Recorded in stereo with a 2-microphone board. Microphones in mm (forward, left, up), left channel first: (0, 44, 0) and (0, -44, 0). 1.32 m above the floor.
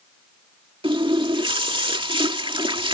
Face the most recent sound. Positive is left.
turn(degrees=-75)  # may be behind; listen again after turning